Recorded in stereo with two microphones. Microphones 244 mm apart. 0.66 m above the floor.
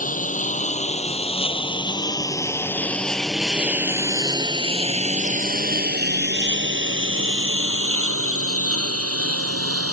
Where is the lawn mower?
35° left (ahead or behind); by 9.9 s 75° right (ahead or behind).